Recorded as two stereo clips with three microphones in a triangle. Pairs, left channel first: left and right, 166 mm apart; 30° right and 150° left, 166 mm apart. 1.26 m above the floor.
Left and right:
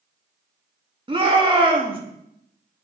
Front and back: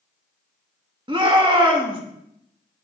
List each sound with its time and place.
1.1 s a shout: 150° right, 2 m